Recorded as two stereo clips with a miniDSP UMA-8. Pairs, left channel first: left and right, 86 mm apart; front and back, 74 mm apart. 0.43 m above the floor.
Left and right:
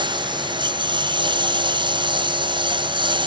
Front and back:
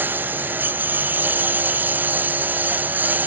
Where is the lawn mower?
115° right.